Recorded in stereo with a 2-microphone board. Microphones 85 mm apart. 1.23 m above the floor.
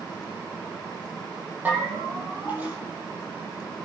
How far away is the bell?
About 8 m.